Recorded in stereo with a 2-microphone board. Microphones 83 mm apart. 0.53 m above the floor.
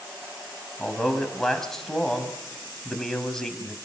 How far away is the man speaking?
About 3.5 m.